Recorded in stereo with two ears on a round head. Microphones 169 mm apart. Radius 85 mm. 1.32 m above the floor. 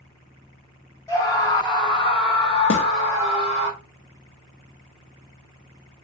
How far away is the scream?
About 1.4 m.